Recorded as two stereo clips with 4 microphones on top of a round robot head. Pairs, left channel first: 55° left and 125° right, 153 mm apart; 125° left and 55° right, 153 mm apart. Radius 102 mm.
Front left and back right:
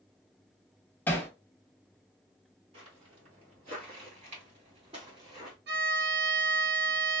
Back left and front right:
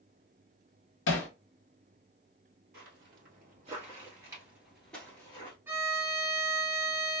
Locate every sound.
1.1 s hammering: 135° left, 0.5 m
2.7 s footsteps: 75° right, 1.6 m; by 5.6 s 175° left, 1.2 m
5.7 s a violin: 130° right, 0.9 m